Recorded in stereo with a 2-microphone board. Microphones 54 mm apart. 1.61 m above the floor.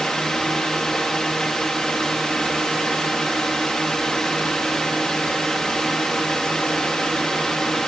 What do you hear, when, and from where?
0.0 s a drone: 10° left (ahead or behind)